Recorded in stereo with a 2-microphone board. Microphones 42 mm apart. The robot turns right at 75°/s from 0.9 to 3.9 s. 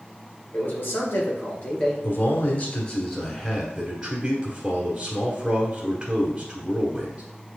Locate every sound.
0.5 s a man speaking: 90° left, 2 m; by 1.9 s 170° left, 2 m
2.0 s a man speaking: 80° left, 1.3 m; by 7.2 s 140° right, 1.3 m